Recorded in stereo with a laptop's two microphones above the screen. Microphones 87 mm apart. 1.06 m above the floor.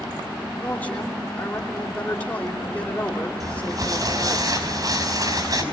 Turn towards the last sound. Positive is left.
turn(degrees=-45)  # may be behind; listen again after turning